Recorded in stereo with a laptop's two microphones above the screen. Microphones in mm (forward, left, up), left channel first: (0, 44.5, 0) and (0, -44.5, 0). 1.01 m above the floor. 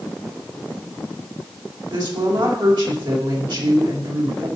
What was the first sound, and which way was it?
A woman speaking, 65° right (ahead or behind).